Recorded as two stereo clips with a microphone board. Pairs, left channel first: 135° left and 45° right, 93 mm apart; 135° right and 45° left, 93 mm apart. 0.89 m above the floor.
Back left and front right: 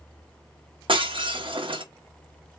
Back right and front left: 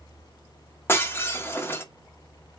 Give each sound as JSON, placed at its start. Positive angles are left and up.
{"t": 0.9, "sound": "breaking glass", "azimuth_deg": -70, "distance_m": 0.9}